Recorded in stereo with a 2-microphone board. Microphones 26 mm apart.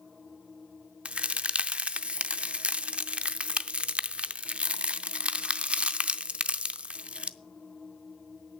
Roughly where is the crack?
Right.